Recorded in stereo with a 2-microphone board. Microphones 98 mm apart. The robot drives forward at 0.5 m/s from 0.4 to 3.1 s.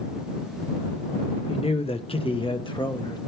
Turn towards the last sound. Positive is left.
turn(degrees=50)  # may be behind; listen again after turning